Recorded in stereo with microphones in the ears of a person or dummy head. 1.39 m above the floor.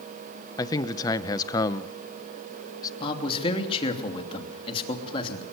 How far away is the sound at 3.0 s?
About 3 m.